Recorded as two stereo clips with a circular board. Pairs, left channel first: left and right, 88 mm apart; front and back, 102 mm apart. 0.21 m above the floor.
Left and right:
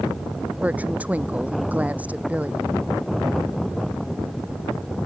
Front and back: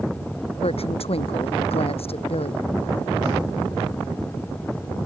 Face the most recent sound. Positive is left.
turn(degrees=-15)